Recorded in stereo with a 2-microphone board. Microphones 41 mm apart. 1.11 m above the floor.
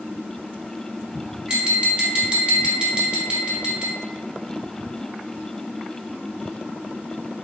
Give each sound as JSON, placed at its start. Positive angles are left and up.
{"t": 1.5, "sound": "tapping", "side_deg": -20, "distance_m": 0.9}